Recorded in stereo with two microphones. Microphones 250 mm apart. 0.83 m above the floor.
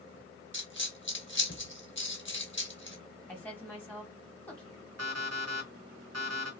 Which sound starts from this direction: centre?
A woman speaking, at 3.3 s.